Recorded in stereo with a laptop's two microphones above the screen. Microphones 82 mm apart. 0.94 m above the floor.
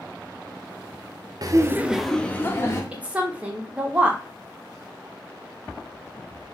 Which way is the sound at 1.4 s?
50° right (ahead or behind).